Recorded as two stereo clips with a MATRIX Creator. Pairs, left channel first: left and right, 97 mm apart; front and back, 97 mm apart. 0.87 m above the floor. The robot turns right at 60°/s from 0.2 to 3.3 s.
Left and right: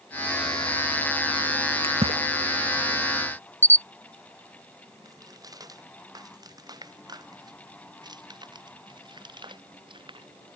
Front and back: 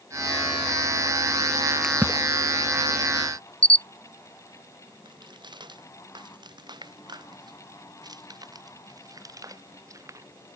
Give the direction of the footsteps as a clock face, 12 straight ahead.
5 o'clock.